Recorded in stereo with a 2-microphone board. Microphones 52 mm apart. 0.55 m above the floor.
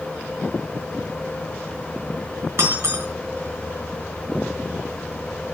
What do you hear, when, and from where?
2.6 s breaking glass: 55° right (ahead or behind), 3.5 m